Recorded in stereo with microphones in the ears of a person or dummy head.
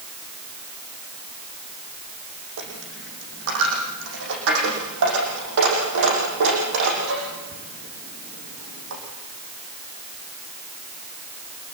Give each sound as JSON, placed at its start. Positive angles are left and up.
{"t": 2.6, "sound": "a dropped coin", "side_deg": -70, "distance_m": 6.0}